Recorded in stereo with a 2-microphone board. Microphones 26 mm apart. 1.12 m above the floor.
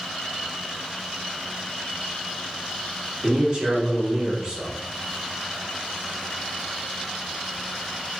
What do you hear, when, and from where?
3.2 s a man speaking: 40° right (ahead or behind), 1.9 m